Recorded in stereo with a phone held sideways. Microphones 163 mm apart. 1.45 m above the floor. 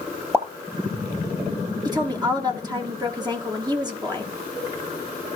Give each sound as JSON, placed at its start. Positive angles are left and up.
{"t": 0.3, "sound": "a pop", "side_deg": -15, "distance_m": 2.5}
{"t": 1.9, "sound": "a woman speaking", "side_deg": -25, "distance_m": 1.6}